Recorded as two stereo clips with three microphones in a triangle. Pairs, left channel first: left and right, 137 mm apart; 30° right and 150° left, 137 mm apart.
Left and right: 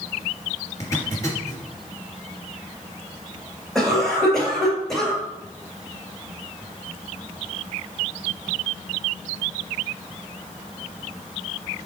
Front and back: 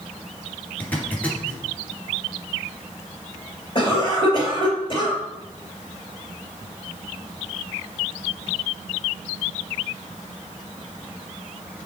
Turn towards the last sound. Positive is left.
turn(degrees=5)